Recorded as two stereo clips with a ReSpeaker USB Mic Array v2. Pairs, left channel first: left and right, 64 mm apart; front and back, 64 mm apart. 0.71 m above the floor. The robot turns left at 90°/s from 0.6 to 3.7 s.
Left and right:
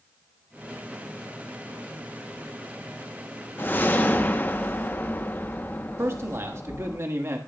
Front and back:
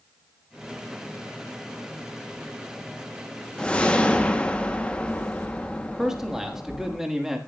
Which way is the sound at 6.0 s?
100° right.